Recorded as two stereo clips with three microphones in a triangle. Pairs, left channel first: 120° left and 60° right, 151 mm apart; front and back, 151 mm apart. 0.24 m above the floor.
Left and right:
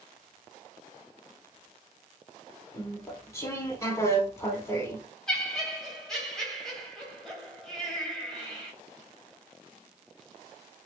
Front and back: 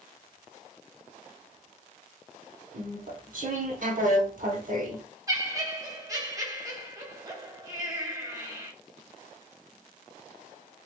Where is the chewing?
170° right, 0.7 m.